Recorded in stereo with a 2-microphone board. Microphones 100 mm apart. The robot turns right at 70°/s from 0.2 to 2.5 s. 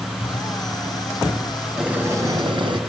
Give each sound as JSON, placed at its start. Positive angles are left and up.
{"t": 0.2, "sound": "a pop", "side_deg": 65, "distance_m": 6.0}
{"t": 1.8, "sound": "boiling", "azimuth_deg": -175, "distance_m": 3.0}